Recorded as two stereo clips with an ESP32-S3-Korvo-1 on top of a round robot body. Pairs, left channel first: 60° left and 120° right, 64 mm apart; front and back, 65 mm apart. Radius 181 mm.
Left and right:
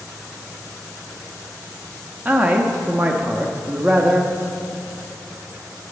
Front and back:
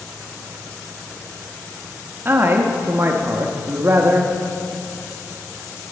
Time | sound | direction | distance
2.2 | a man speaking | 165° right | 1.1 m